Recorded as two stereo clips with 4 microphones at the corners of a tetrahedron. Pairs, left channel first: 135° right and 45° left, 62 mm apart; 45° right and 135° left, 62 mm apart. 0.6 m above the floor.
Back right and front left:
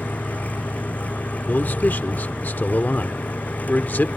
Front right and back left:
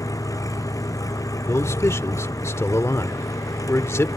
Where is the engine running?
70° right.